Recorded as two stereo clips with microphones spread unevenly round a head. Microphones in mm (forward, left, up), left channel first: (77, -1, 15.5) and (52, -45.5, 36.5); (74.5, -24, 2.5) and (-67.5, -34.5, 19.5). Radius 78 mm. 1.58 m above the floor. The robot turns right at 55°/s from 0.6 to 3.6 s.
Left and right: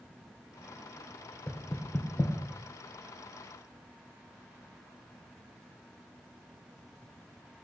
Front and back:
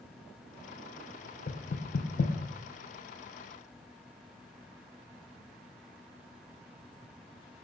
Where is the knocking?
20° right, 0.6 m; by 2.3 s 25° left, 0.6 m.